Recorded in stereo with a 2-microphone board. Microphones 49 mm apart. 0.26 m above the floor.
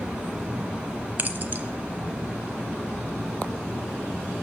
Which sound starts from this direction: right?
Keys jangling, at 1.2 s.